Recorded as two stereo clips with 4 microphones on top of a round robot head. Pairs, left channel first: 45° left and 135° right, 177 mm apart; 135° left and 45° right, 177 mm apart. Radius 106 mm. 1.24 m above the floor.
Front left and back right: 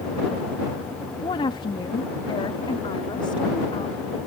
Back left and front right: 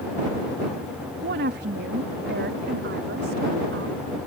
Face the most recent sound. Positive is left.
turn(degrees=-20)